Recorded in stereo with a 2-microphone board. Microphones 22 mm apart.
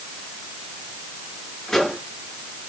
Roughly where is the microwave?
Centre.